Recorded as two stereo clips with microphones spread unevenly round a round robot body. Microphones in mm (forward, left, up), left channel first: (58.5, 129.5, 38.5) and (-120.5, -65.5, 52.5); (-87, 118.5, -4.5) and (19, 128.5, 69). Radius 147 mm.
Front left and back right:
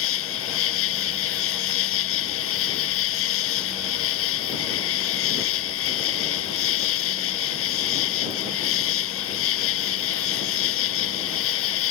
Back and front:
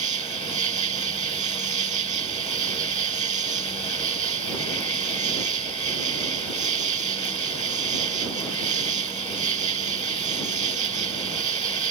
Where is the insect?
Straight ahead.